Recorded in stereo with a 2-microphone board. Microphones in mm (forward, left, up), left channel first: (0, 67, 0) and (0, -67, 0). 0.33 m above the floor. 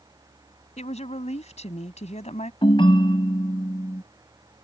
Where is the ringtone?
40° left (ahead or behind).